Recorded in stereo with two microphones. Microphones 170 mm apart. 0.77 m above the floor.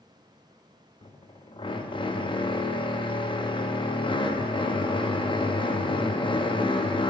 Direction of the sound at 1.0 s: 30° left (ahead or behind).